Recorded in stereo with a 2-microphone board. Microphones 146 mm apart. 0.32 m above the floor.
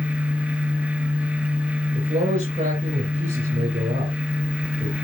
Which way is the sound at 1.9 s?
55° right (ahead or behind).